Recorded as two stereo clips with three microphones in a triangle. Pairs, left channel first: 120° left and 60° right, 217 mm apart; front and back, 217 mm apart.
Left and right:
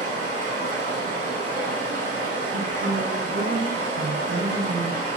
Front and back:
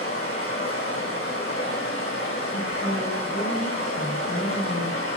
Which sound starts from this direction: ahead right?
A woman speaking, at 2.5 s.